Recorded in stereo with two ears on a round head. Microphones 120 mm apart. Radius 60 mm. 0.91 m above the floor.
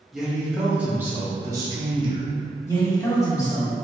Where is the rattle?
I don't hear a rattle.